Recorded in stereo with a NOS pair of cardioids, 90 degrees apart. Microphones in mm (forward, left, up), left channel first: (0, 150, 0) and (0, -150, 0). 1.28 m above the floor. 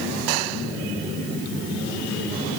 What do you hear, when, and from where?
Only background noise.